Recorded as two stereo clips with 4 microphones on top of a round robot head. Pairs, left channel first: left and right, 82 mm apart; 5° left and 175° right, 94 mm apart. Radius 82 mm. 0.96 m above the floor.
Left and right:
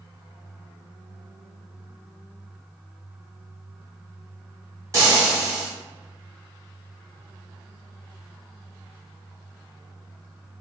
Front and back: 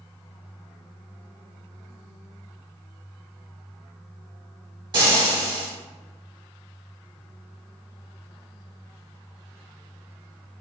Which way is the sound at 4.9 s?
140° right.